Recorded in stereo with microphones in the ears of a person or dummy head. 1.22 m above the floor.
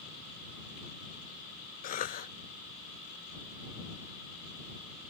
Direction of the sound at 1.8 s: 45° left (ahead or behind).